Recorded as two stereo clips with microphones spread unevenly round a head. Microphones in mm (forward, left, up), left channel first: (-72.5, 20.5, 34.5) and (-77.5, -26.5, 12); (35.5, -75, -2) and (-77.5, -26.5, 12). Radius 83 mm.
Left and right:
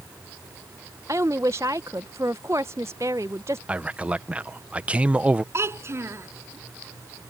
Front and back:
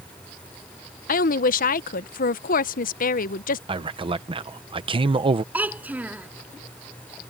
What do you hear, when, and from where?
1.1 s a woman speaking: 30° right
3.7 s a man speaking: 155° right
5.5 s a child speaking: 125° right